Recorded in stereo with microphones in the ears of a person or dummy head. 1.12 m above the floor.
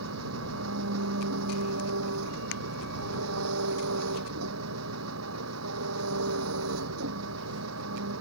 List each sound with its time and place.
0.0 s an engine running: 85° right